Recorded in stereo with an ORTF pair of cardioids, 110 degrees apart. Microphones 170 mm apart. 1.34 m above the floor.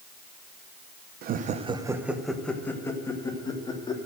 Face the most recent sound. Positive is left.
turn(degrees=25)